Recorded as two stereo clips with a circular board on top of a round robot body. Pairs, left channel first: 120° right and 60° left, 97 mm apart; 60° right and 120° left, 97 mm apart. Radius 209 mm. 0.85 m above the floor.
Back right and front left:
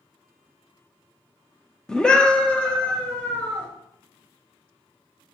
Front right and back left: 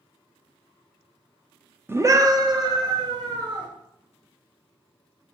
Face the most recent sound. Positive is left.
turn(degrees=160)